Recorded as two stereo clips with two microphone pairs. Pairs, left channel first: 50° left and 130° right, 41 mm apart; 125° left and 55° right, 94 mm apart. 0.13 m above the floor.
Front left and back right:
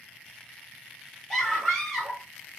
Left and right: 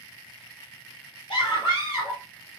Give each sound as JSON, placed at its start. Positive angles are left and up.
{"t": 1.3, "sound": "a scream", "azimuth_deg": 135, "distance_m": 3.0}